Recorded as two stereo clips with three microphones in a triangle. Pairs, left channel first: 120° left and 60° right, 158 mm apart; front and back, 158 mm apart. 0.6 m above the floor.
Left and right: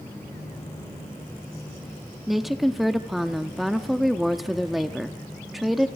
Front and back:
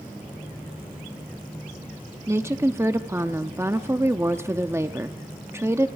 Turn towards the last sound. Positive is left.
turn(degrees=-150)